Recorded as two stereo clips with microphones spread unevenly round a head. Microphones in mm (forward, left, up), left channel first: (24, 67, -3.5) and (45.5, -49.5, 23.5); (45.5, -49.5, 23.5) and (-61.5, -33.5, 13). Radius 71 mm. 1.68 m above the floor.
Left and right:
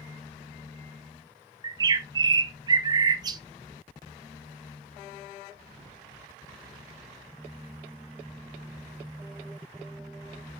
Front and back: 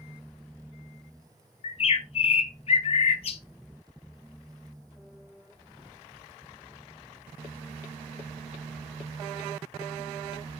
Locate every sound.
1.6 s a bird: 30° right, 0.8 m